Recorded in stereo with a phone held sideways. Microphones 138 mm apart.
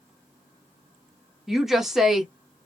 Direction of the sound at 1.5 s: Centre (ahead or behind).